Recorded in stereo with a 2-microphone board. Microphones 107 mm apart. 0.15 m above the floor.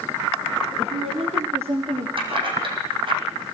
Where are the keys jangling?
50° right (ahead or behind), 4.5 m.